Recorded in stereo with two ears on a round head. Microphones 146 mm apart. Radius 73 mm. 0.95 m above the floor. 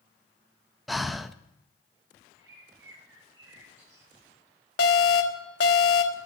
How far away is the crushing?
I don't hear crushing.